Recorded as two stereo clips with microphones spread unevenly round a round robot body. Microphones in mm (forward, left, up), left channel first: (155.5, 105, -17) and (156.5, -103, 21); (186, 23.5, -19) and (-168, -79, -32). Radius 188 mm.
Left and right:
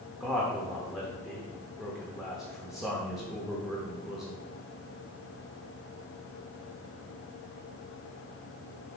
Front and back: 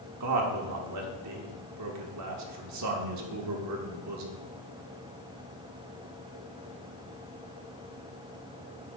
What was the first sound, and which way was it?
A man speaking, 170° left.